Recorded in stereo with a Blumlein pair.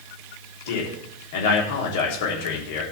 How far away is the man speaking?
About 3.5 m.